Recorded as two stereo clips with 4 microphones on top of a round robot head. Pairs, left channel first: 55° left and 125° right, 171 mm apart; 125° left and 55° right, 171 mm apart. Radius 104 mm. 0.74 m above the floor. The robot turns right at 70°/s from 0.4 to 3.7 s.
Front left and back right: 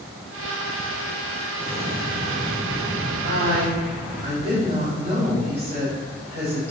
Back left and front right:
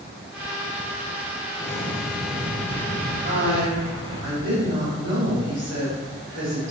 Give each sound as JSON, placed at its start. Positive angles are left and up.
{"t": 1.6, "sound": "an explosion", "azimuth_deg": 170, "distance_m": 2.5}
{"t": 3.2, "sound": "a woman speaking", "azimuth_deg": -110, "distance_m": 4.0}